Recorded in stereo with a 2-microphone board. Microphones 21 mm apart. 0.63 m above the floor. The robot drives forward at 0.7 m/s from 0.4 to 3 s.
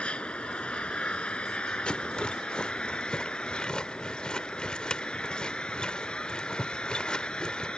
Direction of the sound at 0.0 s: 85° left.